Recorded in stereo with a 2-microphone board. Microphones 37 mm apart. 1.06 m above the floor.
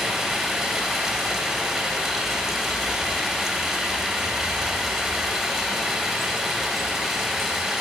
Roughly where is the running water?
Centre.